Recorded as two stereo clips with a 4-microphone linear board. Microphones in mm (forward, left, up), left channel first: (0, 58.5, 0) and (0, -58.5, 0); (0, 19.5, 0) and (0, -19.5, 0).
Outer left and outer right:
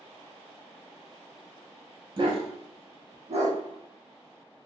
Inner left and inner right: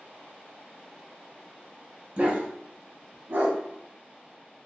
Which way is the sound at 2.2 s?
45° right (ahead or behind).